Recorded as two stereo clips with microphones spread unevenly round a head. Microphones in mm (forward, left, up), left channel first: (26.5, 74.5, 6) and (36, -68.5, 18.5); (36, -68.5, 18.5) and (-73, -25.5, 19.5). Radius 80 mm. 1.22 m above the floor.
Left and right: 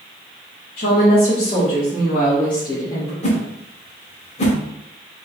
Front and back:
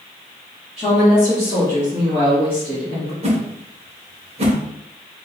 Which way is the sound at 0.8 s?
60° left.